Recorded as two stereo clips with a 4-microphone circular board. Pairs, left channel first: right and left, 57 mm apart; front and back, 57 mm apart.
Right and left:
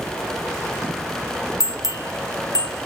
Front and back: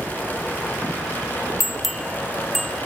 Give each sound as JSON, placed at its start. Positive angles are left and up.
{"t": 1.6, "sound": "a bell", "azimuth_deg": -90, "distance_m": 0.8}